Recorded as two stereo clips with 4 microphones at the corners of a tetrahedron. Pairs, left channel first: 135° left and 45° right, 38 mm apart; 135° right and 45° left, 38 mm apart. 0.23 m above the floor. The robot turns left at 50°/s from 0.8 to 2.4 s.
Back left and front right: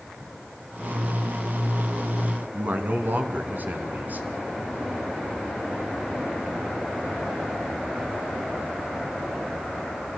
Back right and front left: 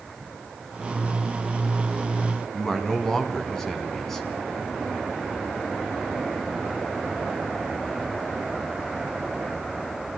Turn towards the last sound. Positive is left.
turn(degrees=-65)